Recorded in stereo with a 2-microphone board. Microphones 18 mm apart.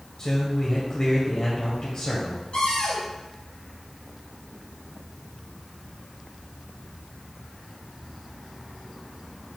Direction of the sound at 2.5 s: 75° left (ahead or behind).